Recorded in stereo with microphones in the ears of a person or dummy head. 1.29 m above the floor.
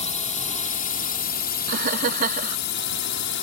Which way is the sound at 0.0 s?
35° left (ahead or behind).